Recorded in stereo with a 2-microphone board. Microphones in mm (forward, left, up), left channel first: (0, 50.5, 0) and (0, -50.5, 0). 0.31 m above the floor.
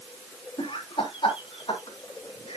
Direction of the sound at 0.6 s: 50° left (ahead or behind).